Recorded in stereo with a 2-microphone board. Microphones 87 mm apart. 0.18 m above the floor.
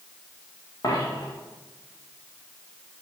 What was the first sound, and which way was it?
A dropped coin, 50° left (ahead or behind).